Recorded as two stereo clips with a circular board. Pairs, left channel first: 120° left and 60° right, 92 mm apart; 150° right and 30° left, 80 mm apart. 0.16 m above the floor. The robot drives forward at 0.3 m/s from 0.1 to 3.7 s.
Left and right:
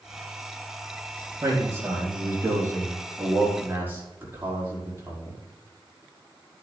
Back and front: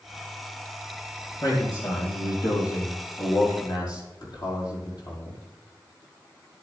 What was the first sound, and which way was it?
A man speaking, 120° right.